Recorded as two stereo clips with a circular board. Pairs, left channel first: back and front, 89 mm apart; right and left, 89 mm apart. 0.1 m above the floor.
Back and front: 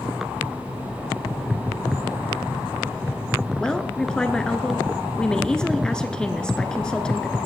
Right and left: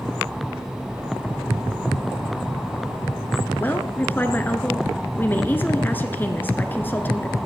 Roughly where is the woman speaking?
Right.